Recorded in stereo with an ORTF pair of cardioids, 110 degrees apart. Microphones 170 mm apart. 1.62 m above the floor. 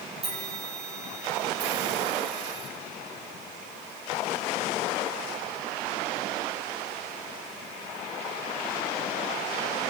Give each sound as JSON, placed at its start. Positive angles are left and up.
{"t": 0.2, "sound": "a bell", "azimuth_deg": -35, "distance_m": 3.5}